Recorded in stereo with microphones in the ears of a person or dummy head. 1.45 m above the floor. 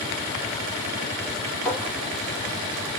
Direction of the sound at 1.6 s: Centre (ahead or behind).